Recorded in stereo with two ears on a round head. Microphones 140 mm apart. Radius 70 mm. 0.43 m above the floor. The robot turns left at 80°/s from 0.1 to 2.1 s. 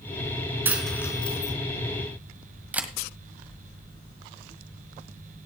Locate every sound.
0.7 s a dropped coin: 15° right (ahead or behind), 2.5 m; by 1.5 s 55° left (ahead or behind), 2.5 m
2.7 s a camera shutter: 10° right (ahead or behind), 1.4 m